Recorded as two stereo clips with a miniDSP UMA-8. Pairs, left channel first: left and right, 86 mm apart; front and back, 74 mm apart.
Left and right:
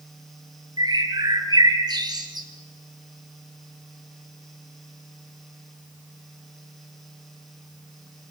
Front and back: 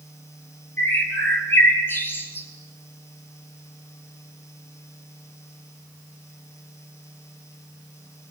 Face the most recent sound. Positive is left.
turn(degrees=-60)